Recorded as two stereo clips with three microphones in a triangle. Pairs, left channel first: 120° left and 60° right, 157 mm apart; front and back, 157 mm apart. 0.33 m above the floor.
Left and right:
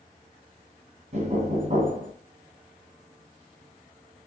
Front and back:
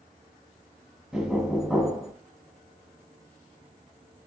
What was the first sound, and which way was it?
Knocking, 95° right.